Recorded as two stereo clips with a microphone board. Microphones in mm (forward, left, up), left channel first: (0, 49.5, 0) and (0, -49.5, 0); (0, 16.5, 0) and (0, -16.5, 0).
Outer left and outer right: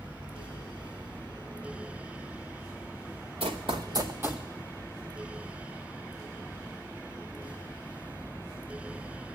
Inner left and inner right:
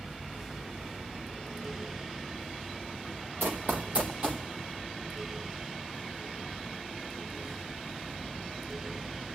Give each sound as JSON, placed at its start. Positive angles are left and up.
{"t": 3.4, "sound": "running footsteps", "side_deg": -70, "distance_m": 1.1}